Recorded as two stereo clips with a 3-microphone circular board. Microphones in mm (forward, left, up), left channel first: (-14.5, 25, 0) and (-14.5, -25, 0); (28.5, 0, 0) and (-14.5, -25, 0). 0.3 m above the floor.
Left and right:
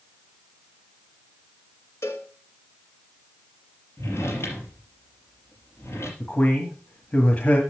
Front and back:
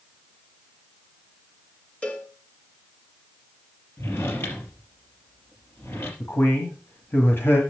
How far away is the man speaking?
About 1.8 m.